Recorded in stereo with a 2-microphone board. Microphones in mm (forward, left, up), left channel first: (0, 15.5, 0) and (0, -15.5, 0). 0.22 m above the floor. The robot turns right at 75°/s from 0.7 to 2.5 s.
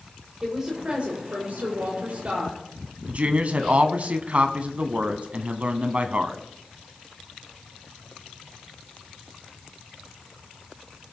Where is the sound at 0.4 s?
160° right, 6.5 m; by 2.6 s 25° right, 6.5 m.